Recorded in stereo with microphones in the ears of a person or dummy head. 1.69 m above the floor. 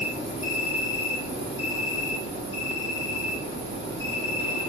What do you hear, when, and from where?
0.0 s an insect: 70° left (ahead or behind), 1.5 m